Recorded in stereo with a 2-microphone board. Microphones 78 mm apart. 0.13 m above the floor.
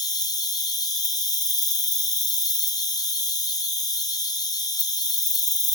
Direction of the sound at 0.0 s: 55° left (ahead or behind).